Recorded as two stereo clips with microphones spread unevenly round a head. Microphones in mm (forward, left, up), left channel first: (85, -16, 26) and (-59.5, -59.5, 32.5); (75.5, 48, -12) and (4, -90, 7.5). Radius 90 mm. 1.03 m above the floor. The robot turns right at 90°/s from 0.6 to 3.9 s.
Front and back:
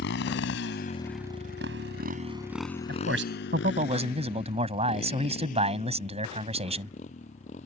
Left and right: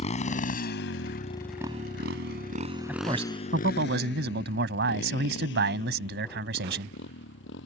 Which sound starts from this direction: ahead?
A motorcycle, at 0.0 s.